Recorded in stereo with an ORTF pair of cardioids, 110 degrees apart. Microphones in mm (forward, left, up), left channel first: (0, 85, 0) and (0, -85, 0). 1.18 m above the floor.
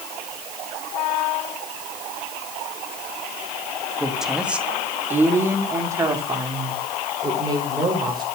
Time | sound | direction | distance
4.0 | a woman speaking | straight ahead | 2.5 m